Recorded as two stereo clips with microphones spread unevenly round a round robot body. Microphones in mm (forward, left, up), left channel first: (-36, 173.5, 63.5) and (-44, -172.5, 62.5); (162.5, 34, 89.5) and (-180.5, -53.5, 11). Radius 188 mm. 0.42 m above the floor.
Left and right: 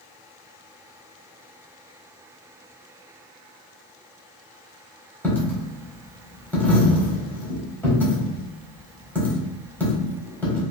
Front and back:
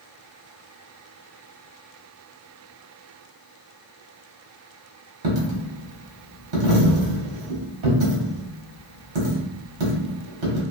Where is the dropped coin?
175° left, 1.2 m.